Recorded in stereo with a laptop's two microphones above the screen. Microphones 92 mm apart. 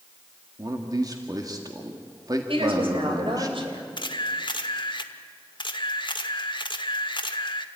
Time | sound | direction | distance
0.6 | a man speaking | 45° right (ahead or behind) | 1.9 m
2.5 | a woman speaking | 70° right (ahead or behind) | 3.5 m
4.0 | a camera shutter | 55° left (ahead or behind) | 1.2 m